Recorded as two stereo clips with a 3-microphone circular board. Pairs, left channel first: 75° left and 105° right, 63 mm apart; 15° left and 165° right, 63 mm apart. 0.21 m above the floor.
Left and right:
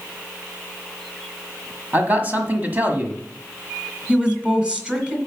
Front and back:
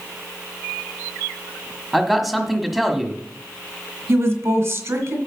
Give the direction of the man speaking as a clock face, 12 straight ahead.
3 o'clock.